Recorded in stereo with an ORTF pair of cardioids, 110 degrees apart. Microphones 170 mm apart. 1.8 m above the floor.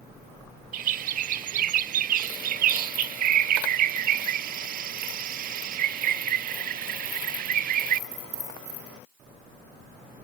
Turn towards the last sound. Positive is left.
turn(degrees=-60)